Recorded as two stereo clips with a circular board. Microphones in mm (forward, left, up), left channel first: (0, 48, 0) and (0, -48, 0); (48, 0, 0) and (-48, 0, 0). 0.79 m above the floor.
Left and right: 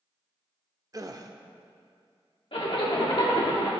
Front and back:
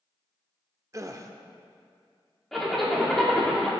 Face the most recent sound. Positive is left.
turn(degrees=85)